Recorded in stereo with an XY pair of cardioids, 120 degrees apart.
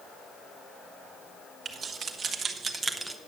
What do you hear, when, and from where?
1.6 s keys jangling: 45° right, 1.7 m; by 3.2 s 10° right, 0.8 m